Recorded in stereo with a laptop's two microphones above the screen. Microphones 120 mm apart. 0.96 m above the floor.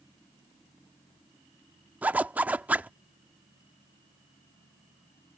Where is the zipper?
15° right (ahead or behind).